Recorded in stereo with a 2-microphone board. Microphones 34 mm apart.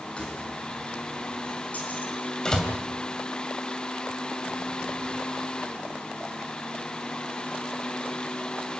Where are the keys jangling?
30° left (ahead or behind), 6.5 m; by 2.1 s 45° left (ahead or behind), 5 m.